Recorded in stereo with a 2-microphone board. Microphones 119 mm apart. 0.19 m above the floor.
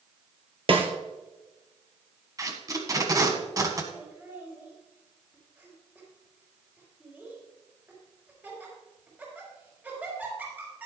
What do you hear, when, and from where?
0.7 s a snare drum: 50° right (ahead or behind), 1.9 m
2.4 s tape being pulled: 30° right (ahead or behind), 1.5 m
3.9 s laughter: 15° right (ahead or behind), 5 m